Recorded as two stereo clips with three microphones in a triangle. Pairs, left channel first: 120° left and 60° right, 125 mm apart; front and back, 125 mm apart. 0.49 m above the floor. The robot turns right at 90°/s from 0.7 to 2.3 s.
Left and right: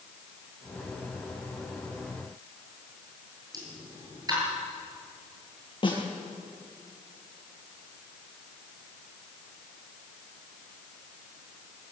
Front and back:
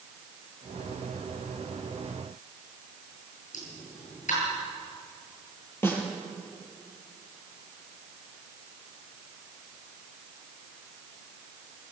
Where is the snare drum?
70° left, 6.5 m.